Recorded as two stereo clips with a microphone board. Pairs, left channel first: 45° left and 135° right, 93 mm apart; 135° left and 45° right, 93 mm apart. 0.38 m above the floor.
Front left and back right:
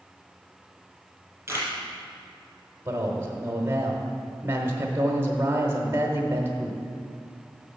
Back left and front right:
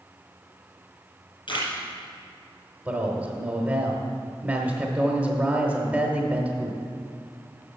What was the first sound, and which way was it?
A camera shutter, 160° left.